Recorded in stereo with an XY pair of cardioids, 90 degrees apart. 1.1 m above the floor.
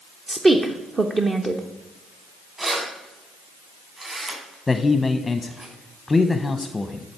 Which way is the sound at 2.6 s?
40° right.